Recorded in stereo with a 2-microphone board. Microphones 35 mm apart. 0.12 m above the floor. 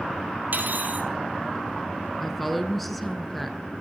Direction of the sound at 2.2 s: Centre (ahead or behind).